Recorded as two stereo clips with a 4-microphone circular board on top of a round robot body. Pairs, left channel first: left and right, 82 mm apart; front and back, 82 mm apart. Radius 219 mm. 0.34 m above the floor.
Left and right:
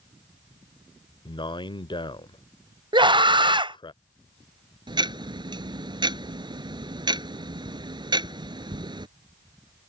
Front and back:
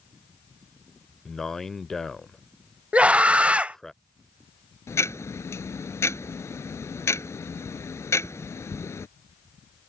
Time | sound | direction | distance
1.2 | a man speaking | 85° left | ?
2.9 | a scream | 105° right | ?
4.9 | ticking | 60° right | ?